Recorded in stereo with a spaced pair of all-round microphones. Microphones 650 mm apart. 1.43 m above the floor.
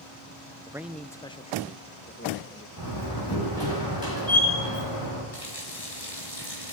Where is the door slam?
30° left (ahead or behind), 9 m.